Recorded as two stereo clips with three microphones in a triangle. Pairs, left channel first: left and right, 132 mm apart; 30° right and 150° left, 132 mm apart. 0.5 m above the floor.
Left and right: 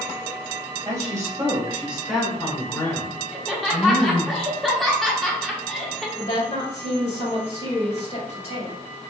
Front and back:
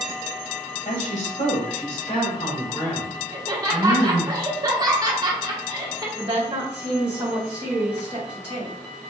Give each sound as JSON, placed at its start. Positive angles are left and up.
{"t": 0.8, "sound": "a woman speaking", "azimuth_deg": -30, "distance_m": 2.5}
{"t": 3.3, "sound": "laughter", "azimuth_deg": 180, "distance_m": 0.9}
{"t": 6.2, "sound": "a woman speaking", "azimuth_deg": 105, "distance_m": 2.5}